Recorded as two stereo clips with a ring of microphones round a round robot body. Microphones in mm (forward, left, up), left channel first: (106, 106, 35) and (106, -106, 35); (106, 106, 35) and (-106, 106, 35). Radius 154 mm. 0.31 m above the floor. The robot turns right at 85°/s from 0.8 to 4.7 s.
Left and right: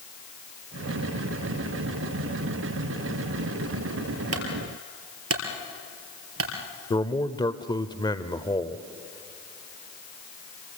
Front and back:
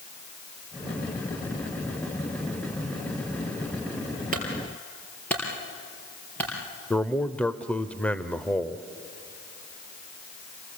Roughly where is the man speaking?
Left.